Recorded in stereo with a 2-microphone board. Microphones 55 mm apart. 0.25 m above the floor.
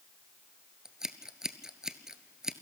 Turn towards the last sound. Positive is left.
turn(degrees=-10)  # may be behind; listen again after turning